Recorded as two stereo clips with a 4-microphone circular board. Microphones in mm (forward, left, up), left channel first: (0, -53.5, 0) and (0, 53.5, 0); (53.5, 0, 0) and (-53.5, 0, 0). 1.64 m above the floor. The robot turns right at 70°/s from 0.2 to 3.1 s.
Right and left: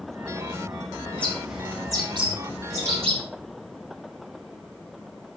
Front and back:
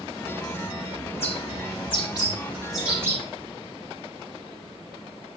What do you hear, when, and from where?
1.1 s a bird: 20° right, 5.5 m; by 3.2 s 115° left, 5.5 m